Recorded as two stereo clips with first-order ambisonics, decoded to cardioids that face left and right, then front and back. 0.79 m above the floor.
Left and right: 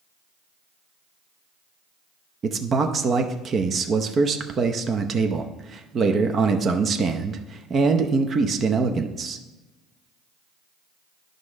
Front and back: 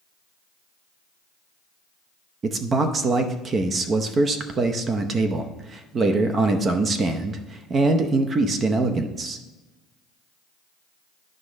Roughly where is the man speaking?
Behind right.